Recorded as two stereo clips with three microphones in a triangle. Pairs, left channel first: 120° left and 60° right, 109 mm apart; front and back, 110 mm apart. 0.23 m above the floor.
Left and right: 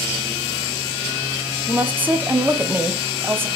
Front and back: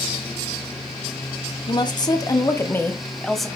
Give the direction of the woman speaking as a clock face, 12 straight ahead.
12 o'clock.